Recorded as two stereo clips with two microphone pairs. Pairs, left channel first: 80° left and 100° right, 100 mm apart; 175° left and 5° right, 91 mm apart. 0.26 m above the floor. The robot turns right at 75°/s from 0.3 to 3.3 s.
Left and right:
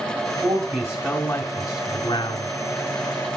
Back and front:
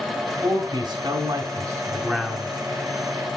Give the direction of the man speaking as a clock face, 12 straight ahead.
2 o'clock.